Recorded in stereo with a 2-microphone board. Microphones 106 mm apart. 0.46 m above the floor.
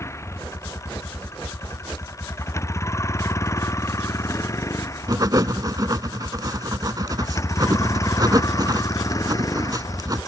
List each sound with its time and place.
0.0 s a vehicle: 25° left (ahead or behind); by 10.3 s 35° left (ahead or behind)
5.1 s writing: 35° right (ahead or behind)